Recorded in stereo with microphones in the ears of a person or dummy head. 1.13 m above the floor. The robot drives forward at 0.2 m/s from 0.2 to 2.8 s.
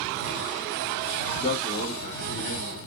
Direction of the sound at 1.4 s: 50° left (ahead or behind).